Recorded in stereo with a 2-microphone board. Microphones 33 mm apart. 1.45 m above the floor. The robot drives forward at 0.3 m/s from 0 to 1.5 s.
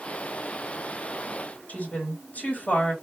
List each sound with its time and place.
1.7 s a woman speaking: 55° left (ahead or behind), 3.5 m